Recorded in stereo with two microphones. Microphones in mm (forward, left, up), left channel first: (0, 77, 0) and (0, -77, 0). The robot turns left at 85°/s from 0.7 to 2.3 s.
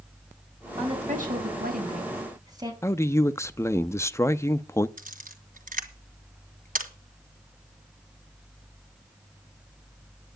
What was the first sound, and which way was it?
A woman speaking, 25° right.